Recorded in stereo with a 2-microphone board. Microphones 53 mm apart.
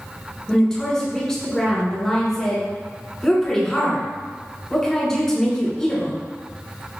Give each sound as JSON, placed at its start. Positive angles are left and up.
{"t": 0.5, "sound": "a woman speaking", "side_deg": 10, "distance_m": 1.3}